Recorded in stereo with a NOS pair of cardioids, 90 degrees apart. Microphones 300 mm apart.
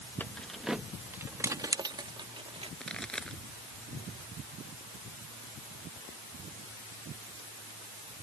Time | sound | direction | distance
0.2 | keys jangling | 5° left | ?
2.8 | a pop | straight ahead | ?